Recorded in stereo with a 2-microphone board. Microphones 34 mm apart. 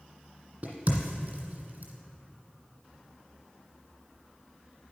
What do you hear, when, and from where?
0.6 s a crack: 45° right (ahead or behind), 1.8 m